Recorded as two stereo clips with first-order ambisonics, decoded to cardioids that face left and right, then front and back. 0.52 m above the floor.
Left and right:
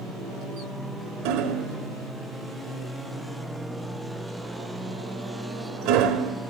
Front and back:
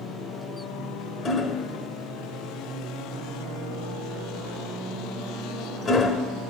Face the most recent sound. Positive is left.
turn(degrees=-65)